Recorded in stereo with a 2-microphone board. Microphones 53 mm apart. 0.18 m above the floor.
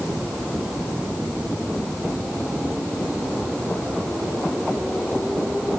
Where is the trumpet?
I don't hear a trumpet.